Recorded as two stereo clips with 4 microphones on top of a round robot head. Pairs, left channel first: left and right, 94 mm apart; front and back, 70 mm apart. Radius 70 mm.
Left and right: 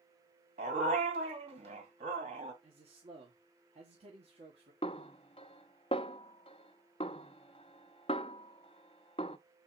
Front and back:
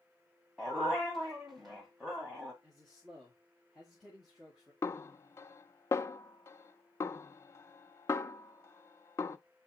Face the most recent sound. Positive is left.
turn(degrees=45)